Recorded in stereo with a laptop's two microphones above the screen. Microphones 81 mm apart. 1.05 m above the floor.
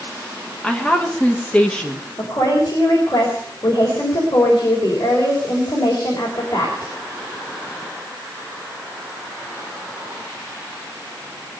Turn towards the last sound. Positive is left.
turn(degrees=45)  # may be behind; listen again after turning